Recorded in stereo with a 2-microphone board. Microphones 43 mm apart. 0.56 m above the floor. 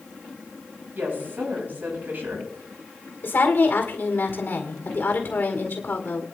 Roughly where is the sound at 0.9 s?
Right.